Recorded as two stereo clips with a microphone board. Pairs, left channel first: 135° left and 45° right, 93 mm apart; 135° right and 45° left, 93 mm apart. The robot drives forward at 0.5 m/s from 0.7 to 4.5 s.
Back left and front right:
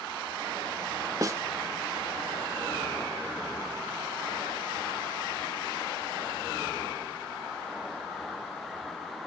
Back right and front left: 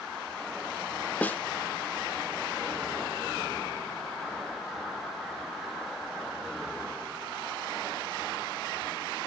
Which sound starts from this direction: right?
A snare drum, at 1.2 s.